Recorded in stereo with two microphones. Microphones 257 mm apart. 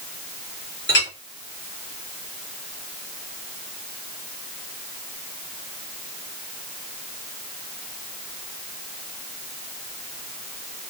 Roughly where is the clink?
Left.